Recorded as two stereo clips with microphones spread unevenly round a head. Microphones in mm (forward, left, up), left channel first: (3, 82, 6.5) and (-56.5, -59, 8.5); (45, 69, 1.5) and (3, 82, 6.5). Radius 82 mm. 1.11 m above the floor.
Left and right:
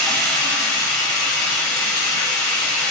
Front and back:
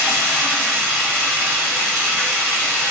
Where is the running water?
155° left, 0.8 m.